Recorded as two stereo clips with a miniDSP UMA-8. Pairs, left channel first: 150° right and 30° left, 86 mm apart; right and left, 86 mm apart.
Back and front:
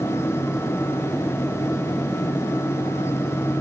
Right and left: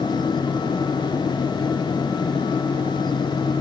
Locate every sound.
Only background noise.